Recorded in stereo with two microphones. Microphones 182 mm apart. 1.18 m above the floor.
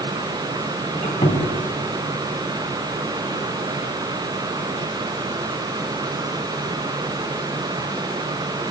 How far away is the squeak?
About 3.5 m.